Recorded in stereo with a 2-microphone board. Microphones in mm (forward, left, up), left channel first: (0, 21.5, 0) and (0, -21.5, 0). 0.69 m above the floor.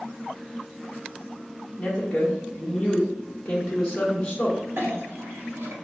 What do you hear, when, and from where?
1.8 s a woman speaking: 10° left (ahead or behind), 1.2 m
4.8 s a clink: 65° right (ahead or behind), 0.9 m